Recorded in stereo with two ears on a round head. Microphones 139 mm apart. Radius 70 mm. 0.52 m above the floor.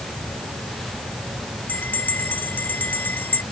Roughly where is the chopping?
I don't hear chopping.